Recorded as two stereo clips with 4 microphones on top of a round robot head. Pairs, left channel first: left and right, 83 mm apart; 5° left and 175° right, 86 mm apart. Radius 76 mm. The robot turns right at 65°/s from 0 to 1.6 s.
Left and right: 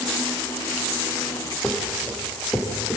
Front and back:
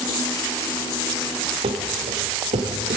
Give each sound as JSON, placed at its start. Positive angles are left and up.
{"t": 1.6, "sound": "running footsteps", "azimuth_deg": 170, "distance_m": 4.0}